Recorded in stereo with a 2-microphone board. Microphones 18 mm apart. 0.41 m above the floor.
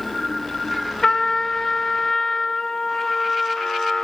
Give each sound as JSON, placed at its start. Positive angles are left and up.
{"t": 1.0, "sound": "a trumpet", "side_deg": 35, "distance_m": 1.0}